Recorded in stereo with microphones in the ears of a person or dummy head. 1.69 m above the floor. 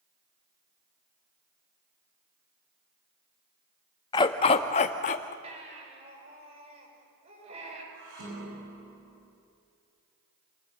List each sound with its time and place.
4.1 s a dog barking: 20° left (ahead or behind), 1.1 m; by 5.3 s 40° left (ahead or behind), 1.5 m
5.4 s a baby crying: 35° right (ahead or behind), 7.5 m
7.9 s dishes clattering: 65° right (ahead or behind), 9.5 m